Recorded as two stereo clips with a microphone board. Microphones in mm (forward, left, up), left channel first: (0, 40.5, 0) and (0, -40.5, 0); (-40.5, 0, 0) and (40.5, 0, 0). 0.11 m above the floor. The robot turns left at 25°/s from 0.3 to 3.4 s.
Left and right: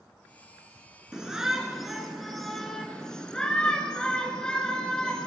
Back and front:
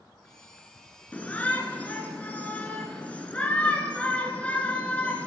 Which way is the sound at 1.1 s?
155° right.